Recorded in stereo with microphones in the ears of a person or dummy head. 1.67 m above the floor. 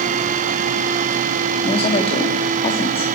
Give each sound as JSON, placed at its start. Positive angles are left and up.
{"t": 1.6, "sound": "a woman speaking", "side_deg": 35, "distance_m": 3.5}